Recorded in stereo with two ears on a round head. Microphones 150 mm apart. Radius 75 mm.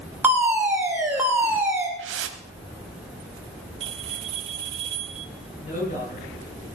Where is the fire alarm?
10° right (ahead or behind), 2.5 m.